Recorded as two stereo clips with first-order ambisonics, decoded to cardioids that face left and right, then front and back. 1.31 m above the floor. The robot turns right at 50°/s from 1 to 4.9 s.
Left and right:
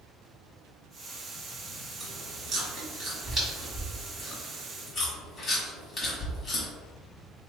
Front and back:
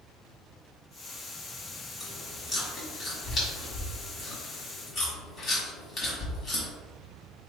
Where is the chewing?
110° right, 1.3 m; by 6.7 s 35° left, 1.3 m.